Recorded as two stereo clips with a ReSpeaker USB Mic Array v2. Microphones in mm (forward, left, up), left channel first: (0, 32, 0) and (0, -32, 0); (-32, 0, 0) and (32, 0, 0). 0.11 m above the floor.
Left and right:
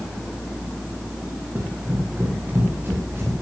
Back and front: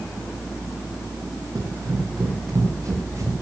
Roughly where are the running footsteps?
Ahead right.